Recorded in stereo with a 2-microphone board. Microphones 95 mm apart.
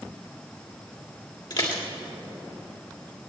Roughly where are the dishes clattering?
Left.